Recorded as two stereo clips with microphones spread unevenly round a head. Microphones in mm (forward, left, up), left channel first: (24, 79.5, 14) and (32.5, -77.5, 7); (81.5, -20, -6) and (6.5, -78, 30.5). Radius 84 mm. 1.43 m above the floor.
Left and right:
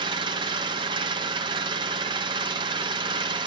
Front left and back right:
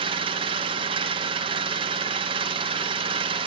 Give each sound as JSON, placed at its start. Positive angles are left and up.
{"t": 0.0, "sound": "an engine running", "azimuth_deg": -150, "distance_m": 1.0}